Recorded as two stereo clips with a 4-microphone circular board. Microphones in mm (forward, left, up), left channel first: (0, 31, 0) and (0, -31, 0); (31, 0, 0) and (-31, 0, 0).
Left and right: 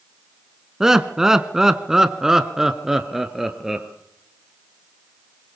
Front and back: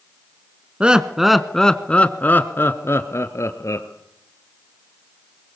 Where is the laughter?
155° right, 1.1 m; by 3.9 s 5° right, 1.9 m.